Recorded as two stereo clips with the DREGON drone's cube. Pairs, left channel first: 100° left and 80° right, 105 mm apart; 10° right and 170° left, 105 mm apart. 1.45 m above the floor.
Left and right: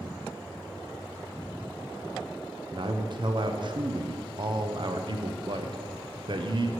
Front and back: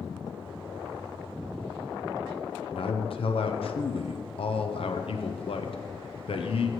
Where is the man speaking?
40° right, 0.7 m.